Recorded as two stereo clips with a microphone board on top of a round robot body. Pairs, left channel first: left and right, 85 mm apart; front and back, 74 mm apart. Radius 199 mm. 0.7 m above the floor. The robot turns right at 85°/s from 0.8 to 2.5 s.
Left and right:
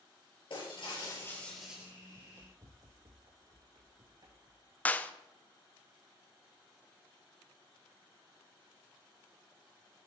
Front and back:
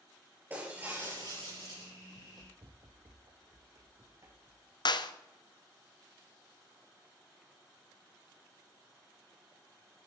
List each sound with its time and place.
0.5 s breaking glass: 115° left, 6 m; by 1.9 s 155° right, 6 m
2.1 s running footsteps: 175° right, 1.4 m; by 4.8 s 130° right, 3 m
4.8 s a clap: 20° left, 1.0 m